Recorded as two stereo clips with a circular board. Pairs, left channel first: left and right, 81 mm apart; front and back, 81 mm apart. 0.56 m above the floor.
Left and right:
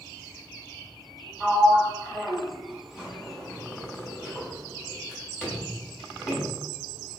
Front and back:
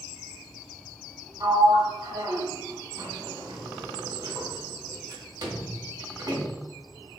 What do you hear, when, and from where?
1.4 s a sliding door: 170° right, 1.4 m